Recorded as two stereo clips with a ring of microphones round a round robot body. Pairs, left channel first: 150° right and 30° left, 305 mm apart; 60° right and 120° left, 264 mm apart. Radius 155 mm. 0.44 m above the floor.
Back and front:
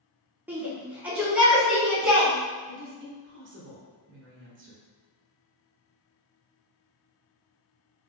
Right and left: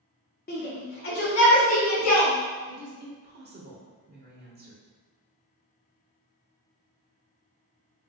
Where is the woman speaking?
75° left, 1.4 m.